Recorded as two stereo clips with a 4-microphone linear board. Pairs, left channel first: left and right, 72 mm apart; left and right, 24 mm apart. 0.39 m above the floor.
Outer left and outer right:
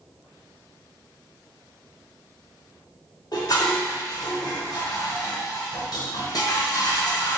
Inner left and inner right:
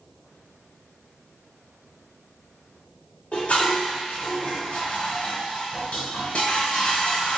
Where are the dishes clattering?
70° left (ahead or behind), 1.4 m.